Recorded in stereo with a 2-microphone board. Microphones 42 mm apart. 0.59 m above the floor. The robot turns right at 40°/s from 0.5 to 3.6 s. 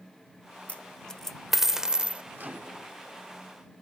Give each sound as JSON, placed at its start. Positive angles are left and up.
{"t": 0.7, "sound": "a dropped coin", "side_deg": 35}
{"t": 2.4, "sound": "a microwave", "side_deg": -50}